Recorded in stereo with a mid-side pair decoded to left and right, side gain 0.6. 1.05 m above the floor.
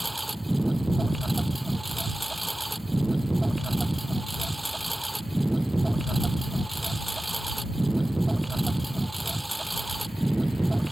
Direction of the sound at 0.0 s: 10° right.